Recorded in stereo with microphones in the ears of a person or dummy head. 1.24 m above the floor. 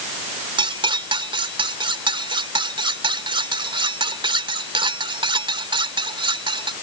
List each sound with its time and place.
0.6 s cutlery clinking: 25° right (ahead or behind)